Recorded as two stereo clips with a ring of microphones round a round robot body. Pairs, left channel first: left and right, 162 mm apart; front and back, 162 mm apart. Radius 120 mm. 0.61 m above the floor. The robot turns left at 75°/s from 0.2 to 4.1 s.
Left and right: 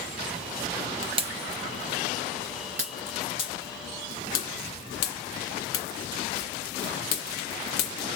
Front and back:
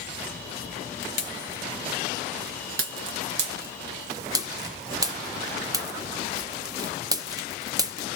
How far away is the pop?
About 0.9 m.